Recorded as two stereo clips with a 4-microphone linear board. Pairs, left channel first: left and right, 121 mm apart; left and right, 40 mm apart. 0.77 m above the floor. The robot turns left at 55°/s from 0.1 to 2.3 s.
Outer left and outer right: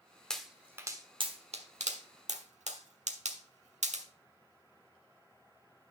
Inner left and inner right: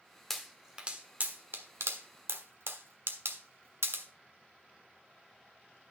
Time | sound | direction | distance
0.3 | a pop | 5° left (ahead or behind) | 1.2 m